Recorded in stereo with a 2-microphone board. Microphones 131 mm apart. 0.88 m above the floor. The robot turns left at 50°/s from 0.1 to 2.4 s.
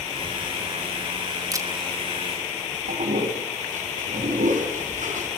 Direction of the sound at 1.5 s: 25° right (ahead or behind).